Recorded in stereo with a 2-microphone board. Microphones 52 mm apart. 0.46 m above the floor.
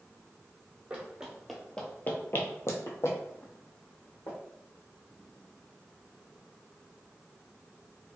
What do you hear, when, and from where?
0.9 s running footsteps: 20° right (ahead or behind), 0.8 m; by 4.4 s 65° left (ahead or behind), 1.6 m